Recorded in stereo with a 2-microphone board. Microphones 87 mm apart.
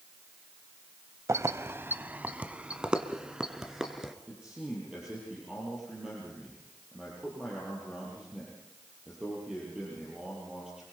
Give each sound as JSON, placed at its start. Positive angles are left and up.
{"t": 1.3, "sound": "keys jangling", "side_deg": -35, "distance_m": 0.7}
{"t": 4.3, "sound": "a man speaking", "side_deg": -10, "distance_m": 7.0}